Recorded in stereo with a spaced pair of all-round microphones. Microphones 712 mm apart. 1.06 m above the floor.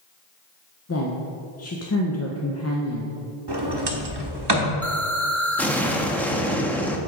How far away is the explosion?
About 0.5 m.